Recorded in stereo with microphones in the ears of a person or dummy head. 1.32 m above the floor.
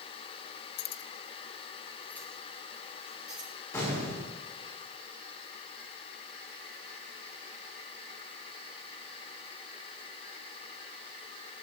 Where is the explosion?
10° left (ahead or behind), 4.5 m.